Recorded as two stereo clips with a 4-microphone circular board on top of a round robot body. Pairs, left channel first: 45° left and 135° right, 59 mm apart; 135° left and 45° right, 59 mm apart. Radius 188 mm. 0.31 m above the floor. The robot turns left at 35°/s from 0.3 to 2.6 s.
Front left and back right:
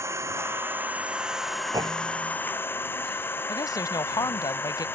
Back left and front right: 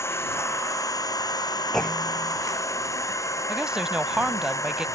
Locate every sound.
0.0 s an engine running: straight behind; by 5.0 s 100° left
1.7 s a clunk: 140° right; by 2.4 s 160° right
3.5 s a woman speaking: 35° left